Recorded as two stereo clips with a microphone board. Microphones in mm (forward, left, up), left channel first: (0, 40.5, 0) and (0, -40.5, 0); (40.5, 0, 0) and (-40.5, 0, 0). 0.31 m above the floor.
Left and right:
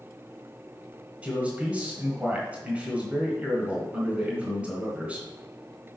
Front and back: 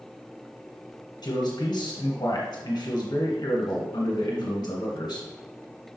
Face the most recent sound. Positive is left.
turn(degrees=-25)